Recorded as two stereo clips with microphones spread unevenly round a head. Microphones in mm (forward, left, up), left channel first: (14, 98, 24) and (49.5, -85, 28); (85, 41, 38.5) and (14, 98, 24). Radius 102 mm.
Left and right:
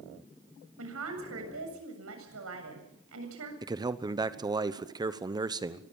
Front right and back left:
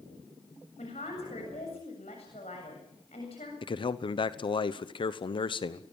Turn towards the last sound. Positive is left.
turn(degrees=-10)